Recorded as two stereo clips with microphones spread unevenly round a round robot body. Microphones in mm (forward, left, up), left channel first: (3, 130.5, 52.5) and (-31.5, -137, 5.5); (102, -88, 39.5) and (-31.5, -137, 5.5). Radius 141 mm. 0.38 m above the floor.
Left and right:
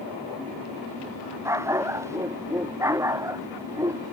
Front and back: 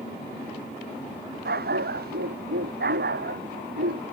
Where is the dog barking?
Straight behind; by 4.1 s 175° right.